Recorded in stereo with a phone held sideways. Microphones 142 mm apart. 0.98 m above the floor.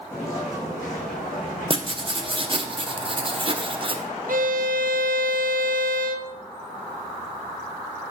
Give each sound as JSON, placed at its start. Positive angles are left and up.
{"t": 0.1, "sound": "footsteps", "side_deg": 20, "distance_m": 3.0}
{"t": 1.7, "sound": "writing", "side_deg": -40, "distance_m": 0.6}
{"t": 4.3, "sound": "a violin", "side_deg": -75, "distance_m": 0.5}